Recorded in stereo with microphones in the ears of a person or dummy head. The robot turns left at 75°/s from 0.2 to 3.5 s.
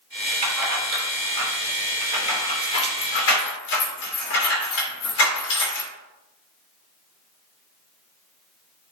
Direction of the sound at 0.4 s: 35° right (ahead or behind).